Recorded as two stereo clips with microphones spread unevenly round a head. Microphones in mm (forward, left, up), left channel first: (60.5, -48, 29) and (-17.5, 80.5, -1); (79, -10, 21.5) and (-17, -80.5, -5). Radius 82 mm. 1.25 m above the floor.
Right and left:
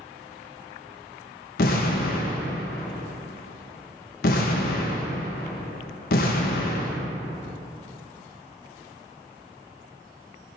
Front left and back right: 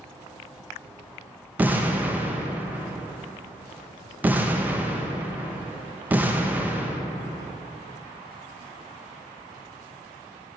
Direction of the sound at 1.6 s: 65° right.